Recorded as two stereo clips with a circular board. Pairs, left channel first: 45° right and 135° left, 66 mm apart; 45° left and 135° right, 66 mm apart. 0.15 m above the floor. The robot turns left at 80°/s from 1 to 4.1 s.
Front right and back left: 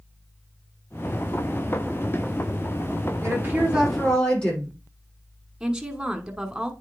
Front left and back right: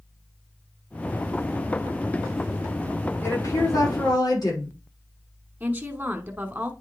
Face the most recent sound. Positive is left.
turn(degrees=-155)